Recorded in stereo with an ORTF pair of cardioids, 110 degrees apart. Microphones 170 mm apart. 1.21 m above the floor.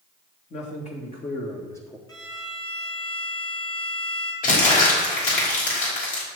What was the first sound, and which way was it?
A man speaking, 45° left.